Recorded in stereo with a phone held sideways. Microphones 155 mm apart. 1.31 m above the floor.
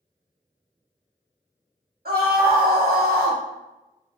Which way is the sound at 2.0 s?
85° right.